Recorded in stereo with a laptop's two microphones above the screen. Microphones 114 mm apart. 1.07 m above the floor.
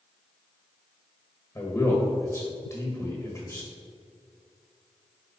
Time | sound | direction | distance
1.6 | a man speaking | 20° left (ahead or behind) | 1.4 m